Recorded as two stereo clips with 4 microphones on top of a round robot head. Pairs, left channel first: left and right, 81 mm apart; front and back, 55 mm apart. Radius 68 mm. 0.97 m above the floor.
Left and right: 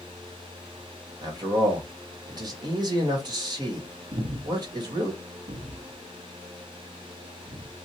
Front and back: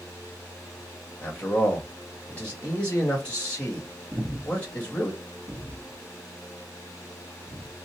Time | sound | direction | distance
1.2 | a man speaking | 70° right | 1.6 m
4.1 | breathing | 110° right | 0.6 m